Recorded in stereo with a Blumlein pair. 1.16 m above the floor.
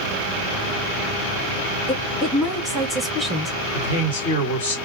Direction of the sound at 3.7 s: 65° left.